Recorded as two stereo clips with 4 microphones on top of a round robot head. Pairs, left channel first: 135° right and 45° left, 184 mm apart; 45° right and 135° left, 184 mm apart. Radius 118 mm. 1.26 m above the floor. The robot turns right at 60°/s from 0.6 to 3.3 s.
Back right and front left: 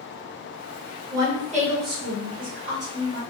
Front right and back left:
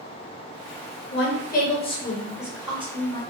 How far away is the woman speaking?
About 1.1 m.